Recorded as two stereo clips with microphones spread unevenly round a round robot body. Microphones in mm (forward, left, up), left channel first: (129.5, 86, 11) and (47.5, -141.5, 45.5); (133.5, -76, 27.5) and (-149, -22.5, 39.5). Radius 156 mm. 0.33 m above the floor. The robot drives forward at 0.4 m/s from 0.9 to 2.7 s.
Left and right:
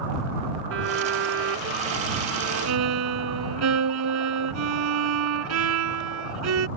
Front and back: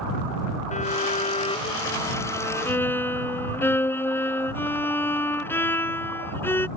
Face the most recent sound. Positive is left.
turn(degrees=-95)